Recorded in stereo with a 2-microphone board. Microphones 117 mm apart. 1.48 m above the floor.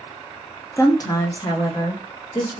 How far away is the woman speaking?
About 0.6 m.